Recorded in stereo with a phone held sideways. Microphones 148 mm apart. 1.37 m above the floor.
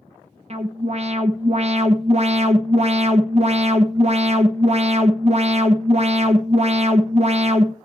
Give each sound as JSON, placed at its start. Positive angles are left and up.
{"t": 0.5, "sound": "an alarm", "side_deg": -45, "distance_m": 1.1}